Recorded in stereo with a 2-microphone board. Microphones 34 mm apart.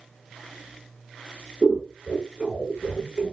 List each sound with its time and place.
1.6 s scissors: 25° right (ahead or behind), 1.0 m